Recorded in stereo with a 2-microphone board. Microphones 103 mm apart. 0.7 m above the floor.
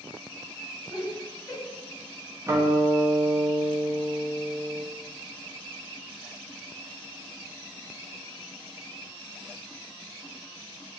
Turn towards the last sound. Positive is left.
turn(degrees=-25)  # may be behind; listen again after turning